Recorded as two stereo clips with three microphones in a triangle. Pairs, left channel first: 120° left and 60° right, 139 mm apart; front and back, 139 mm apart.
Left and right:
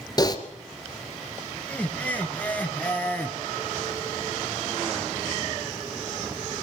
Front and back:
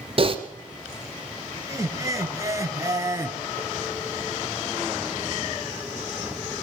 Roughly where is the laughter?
Behind.